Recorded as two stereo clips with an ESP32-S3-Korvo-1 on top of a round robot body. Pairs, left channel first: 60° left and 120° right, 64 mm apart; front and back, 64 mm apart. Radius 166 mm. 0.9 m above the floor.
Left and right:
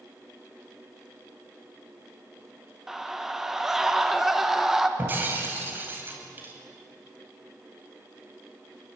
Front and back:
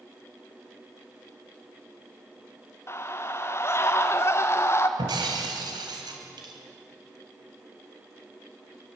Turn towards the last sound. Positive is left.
turn(degrees=180)